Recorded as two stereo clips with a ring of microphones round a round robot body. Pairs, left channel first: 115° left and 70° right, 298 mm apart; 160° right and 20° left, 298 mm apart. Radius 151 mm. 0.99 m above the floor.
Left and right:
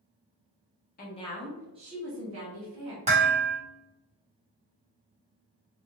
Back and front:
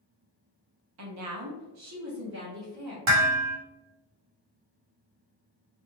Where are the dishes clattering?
Straight ahead, 1.0 m.